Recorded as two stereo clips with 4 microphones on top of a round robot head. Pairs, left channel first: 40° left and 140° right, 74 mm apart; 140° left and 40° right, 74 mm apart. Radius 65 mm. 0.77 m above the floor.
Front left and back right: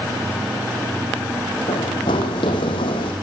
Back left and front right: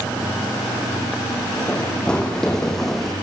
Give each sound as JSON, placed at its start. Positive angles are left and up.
{"t": 1.7, "sound": "running footsteps", "azimuth_deg": 60, "distance_m": 4.0}